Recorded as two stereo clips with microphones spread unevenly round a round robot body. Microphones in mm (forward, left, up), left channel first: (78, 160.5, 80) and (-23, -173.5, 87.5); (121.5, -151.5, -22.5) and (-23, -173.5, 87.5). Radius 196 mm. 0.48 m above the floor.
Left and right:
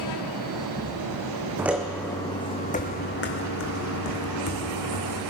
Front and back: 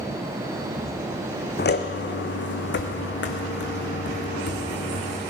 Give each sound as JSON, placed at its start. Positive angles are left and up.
{"t": 1.6, "sound": "footsteps", "azimuth_deg": -25, "distance_m": 1.3}